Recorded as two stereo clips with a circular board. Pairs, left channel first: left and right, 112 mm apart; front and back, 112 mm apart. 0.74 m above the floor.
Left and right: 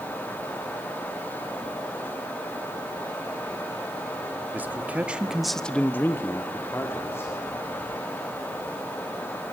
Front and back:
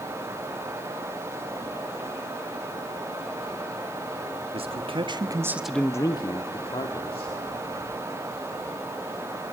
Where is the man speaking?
165° right, 1.5 m; by 7.3 s 25° left, 2 m.